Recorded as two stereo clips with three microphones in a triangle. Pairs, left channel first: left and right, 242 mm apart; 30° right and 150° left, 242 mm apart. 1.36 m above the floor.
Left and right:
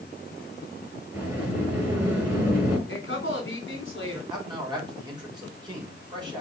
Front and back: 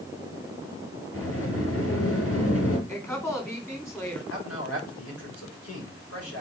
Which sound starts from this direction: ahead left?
A woman speaking, at 2.9 s.